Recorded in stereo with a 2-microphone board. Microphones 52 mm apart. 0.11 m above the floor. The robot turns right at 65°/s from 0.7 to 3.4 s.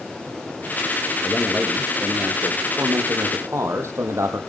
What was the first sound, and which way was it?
A man speaking, 150° left.